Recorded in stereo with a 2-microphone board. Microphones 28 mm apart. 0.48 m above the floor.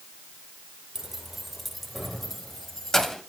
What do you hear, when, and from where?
0.9 s keys jangling: 15° right (ahead or behind), 0.7 m; by 3.2 s 20° left (ahead or behind), 1.7 m